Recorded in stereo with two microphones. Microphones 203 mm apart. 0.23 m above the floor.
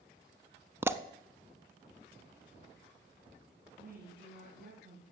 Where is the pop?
10° right (ahead or behind), 0.5 m.